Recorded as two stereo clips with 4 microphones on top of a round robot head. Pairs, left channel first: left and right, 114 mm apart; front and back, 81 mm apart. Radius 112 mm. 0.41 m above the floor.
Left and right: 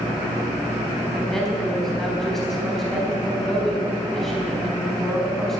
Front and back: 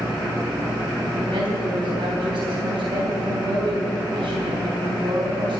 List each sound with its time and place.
1.1 s a woman speaking: 175° left, 4 m